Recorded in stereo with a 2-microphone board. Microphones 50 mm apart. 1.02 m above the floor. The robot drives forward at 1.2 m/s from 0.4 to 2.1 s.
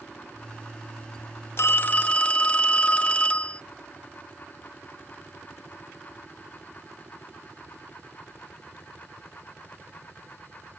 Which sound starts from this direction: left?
A phone ringing, at 1.6 s.